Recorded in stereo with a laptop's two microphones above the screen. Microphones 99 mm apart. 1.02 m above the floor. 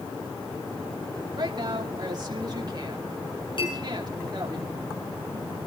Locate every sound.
1.4 s a woman speaking: 45° right (ahead or behind), 2.5 m
3.6 s a clink: 55° left (ahead or behind), 7 m